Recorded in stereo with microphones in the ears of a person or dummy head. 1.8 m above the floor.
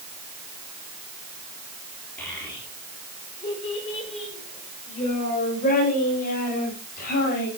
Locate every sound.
2.2 s a child speaking: 10° left (ahead or behind), 3.5 m; by 7.5 s 55° left (ahead or behind), 8 m